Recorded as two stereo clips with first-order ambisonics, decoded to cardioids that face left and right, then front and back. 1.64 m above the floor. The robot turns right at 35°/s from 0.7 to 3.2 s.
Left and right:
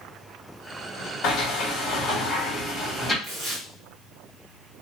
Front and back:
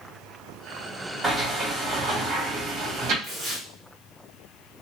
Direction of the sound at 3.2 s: 140° right.